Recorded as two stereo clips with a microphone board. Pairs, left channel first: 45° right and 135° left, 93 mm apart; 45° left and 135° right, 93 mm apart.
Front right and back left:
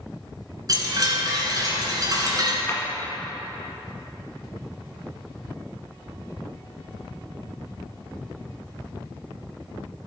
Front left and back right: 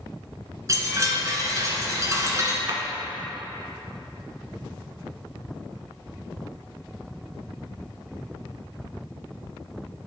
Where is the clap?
100° right, 1.4 m.